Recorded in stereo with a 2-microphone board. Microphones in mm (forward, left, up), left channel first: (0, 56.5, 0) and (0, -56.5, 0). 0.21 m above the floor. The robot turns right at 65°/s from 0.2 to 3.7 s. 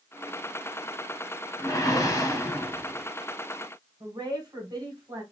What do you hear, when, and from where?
1.6 s a whoosh: 70° left, 0.8 m; by 3.1 s 165° left, 0.8 m
4.0 s a woman speaking: 40° right (ahead or behind), 1.7 m